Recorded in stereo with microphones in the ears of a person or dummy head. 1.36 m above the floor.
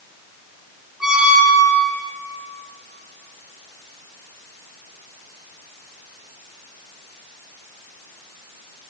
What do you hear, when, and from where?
1.0 s a squeak: 5° right (ahead or behind), 1.8 m